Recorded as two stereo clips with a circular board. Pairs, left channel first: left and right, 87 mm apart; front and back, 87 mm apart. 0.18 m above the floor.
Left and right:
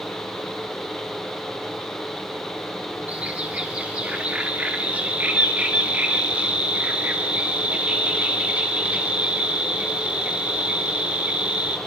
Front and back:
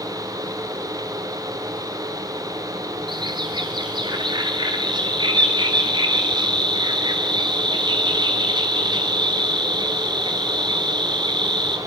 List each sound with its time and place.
3.1 s a bird: 165° right, 2.5 m